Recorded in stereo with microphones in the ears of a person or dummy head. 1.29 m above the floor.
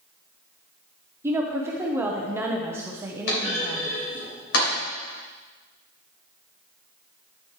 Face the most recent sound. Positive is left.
turn(degrees=80)